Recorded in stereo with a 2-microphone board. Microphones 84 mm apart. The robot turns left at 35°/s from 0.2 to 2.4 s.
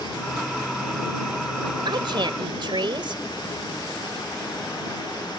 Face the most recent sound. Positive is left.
turn(degrees=-75)  # may be behind; listen again after turning